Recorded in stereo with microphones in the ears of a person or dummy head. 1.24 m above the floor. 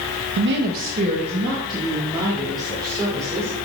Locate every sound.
0.4 s a woman speaking: 65° right (ahead or behind), 0.6 m; by 3.6 s 20° right (ahead or behind), 3 m